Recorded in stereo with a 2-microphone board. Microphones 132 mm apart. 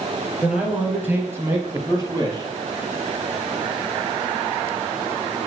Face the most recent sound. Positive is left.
turn(degrees=-30)  # may be behind; listen again after turning